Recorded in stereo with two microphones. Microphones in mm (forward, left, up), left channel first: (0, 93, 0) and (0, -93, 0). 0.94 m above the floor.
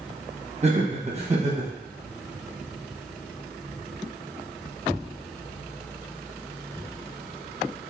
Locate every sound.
0.6 s laughter: 35° right (ahead or behind), 1.2 m